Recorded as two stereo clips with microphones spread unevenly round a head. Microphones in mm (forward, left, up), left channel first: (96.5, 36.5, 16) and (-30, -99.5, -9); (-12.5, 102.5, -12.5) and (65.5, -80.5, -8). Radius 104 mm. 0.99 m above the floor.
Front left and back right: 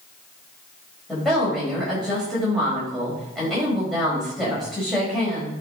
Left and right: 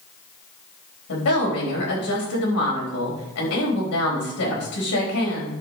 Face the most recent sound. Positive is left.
turn(degrees=135)